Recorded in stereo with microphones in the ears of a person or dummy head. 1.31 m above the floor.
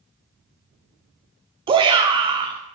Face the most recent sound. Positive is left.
turn(degrees=-25)  # may be behind; listen again after turning